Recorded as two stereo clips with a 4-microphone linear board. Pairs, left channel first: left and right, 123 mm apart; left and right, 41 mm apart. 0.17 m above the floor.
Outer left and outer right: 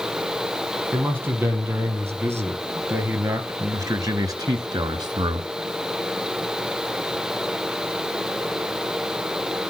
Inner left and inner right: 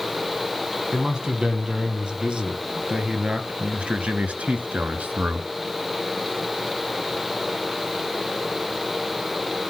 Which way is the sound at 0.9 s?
15° right (ahead or behind).